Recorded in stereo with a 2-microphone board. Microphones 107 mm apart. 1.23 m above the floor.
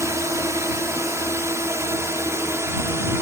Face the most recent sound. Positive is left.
turn(degrees=-25)  # may be behind; listen again after turning